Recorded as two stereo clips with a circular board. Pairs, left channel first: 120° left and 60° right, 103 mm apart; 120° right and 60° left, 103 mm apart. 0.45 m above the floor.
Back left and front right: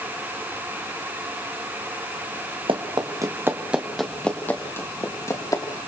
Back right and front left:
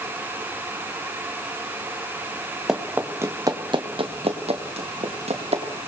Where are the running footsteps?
25° right, 2 m; by 5.6 s 65° left, 4 m.